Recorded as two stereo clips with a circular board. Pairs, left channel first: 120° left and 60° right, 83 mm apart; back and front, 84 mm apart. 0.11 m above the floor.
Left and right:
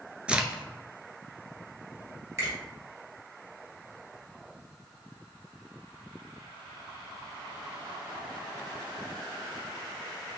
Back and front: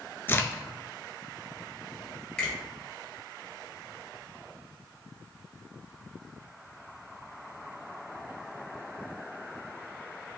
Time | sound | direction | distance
0.3 | a crack | 130° right | 0.5 m
2.4 | a finger snap | 110° right | 2 m